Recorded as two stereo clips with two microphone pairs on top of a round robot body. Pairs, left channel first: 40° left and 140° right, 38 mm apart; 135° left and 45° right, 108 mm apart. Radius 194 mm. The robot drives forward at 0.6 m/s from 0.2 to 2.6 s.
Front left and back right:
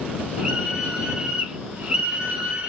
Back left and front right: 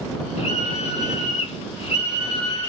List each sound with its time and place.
0.4 s a scream: 150° left, 4.5 m; by 2.7 s 155° left, 5.5 m